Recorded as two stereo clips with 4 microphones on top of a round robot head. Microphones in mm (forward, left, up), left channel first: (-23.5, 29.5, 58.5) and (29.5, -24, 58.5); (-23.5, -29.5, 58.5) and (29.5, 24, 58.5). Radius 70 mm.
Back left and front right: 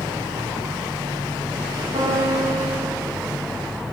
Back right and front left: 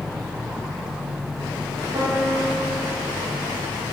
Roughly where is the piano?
Ahead.